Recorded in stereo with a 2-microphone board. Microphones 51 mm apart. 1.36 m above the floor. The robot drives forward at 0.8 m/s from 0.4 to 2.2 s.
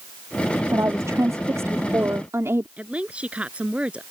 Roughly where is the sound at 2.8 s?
Right.